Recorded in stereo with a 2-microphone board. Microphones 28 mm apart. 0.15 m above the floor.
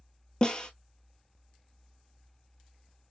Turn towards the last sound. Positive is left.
turn(degrees=30)  # may be behind; listen again after turning